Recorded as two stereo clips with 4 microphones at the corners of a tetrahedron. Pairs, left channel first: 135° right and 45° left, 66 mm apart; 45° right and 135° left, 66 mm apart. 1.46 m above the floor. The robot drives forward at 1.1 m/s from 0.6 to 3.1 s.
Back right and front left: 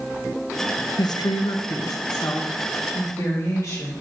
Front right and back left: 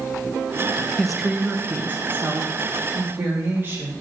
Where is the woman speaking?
125° right, 0.6 m; by 3.9 s 170° right, 2.5 m.